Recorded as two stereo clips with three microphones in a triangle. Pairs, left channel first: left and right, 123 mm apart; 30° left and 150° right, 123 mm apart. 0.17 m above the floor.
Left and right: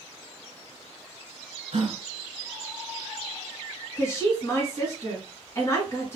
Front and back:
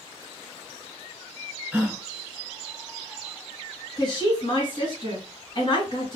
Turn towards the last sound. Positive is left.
turn(degrees=40)